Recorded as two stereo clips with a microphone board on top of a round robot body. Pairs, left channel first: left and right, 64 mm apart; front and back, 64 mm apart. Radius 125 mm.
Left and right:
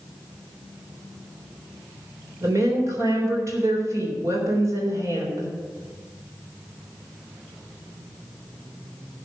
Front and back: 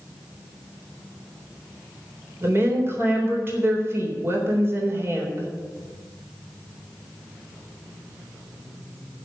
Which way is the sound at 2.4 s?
130° right.